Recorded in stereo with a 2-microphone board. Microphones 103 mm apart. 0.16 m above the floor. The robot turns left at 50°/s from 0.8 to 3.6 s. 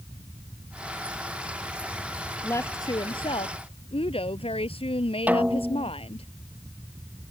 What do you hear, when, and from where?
2.4 s a woman speaking: 155° left; by 6.3 s 100° left
5.3 s a snare drum: 15° right (ahead or behind)